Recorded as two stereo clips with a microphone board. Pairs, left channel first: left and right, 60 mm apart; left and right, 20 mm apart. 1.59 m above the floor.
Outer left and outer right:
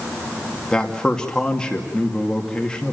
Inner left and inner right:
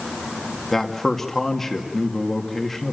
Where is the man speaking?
15° left (ahead or behind), 2 m.